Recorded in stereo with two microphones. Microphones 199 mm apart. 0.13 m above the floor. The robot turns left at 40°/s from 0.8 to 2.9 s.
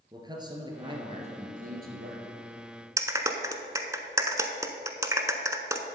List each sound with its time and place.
0.1 s a man speaking: 25° right, 2 m; by 2.3 s 85° right, 2 m
3.0 s a clap: 15° right (ahead or behind), 0.8 m